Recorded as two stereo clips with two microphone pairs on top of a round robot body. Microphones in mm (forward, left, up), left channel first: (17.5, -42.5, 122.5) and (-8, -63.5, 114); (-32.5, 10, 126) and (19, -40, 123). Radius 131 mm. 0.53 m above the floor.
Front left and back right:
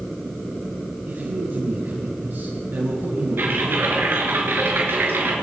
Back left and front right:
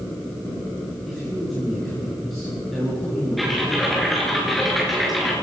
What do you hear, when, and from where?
1.1 s a man speaking: 135° right, 7.5 m
3.4 s typing on a keyboard: 135° right, 5.5 m